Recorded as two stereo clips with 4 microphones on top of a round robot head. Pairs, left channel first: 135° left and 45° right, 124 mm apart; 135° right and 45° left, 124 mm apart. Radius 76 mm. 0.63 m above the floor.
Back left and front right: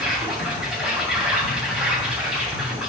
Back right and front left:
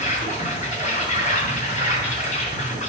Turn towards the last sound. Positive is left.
turn(degrees=-135)